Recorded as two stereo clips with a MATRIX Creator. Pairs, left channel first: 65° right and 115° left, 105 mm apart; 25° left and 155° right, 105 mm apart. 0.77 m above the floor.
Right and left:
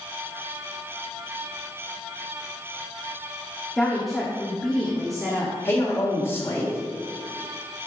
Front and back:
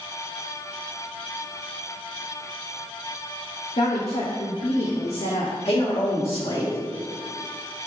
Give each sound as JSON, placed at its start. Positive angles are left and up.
{"t": 3.8, "sound": "a woman speaking", "azimuth_deg": 20, "distance_m": 1.2}
{"t": 5.7, "sound": "a man speaking", "azimuth_deg": 0, "distance_m": 2.5}